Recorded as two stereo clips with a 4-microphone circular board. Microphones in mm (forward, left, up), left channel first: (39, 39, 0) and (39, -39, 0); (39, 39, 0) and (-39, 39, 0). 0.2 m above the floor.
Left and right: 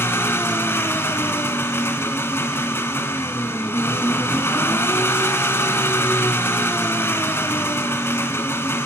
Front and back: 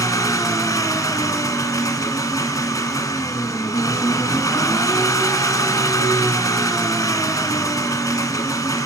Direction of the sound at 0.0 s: 35° left.